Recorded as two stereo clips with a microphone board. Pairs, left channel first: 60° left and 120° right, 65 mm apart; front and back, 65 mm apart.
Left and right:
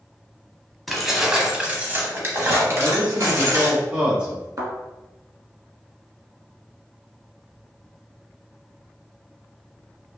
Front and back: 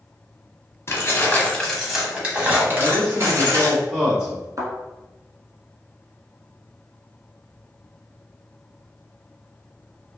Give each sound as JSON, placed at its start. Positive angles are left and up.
{"t": 0.9, "sound": "keys jangling", "azimuth_deg": -25, "distance_m": 0.9}
{"t": 2.8, "sound": "a man speaking", "azimuth_deg": -130, "distance_m": 1.2}
{"t": 4.6, "sound": "a thud", "azimuth_deg": -150, "distance_m": 1.1}